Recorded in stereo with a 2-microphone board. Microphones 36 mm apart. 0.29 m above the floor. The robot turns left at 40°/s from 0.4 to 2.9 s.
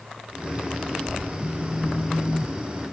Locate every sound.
1.4 s a phone buzzing: 65° left; by 2.9 s 5° left